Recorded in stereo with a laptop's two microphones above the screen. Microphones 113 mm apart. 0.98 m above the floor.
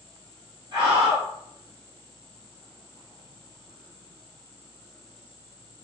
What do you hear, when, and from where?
0.7 s a scream: 40° right (ahead or behind), 1.1 m